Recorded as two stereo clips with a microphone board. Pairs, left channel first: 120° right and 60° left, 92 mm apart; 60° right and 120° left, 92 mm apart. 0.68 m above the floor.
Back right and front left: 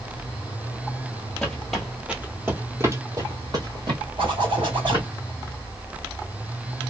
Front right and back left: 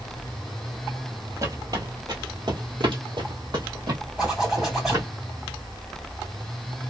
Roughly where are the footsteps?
Behind.